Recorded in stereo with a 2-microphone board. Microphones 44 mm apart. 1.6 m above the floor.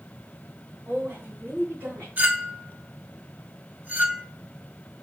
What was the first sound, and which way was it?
A woman speaking, 70° right (ahead or behind).